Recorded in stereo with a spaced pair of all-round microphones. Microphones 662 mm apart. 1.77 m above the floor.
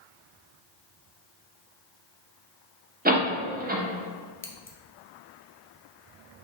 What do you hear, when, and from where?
3.0 s a door slam: 15° right (ahead or behind), 0.6 m
4.4 s scissors: 20° left (ahead or behind), 0.5 m